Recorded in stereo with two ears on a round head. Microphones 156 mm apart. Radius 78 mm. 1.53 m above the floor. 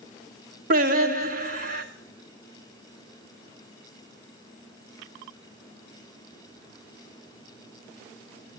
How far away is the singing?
About 1.2 m.